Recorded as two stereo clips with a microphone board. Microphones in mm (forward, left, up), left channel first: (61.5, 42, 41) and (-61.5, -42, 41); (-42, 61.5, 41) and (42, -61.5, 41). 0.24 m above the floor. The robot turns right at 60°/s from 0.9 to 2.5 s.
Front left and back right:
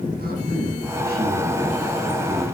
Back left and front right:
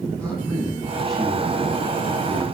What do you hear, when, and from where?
0.2 s a man speaking: 160° right, 10 m; by 2.5 s 65° right, 10 m